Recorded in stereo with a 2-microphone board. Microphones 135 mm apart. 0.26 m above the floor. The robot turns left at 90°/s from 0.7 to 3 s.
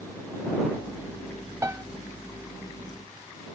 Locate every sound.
1.6 s a piano: 20° right (ahead or behind)